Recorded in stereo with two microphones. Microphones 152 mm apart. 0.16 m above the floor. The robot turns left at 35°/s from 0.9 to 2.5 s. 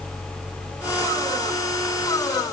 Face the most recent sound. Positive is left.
No sound to turn to.